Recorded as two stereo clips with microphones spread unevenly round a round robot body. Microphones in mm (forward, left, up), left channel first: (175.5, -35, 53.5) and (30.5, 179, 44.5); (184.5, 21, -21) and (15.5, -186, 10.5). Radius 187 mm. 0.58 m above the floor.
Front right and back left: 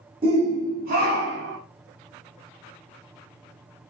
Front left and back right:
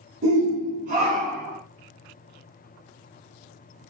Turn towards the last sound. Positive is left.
turn(degrees=135)